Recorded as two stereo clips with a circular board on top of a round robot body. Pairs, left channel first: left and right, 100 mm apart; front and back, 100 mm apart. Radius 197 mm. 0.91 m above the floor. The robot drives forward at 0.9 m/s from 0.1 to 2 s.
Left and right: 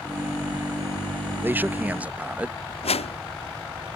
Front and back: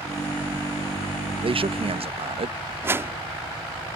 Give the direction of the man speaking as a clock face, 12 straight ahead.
5 o'clock.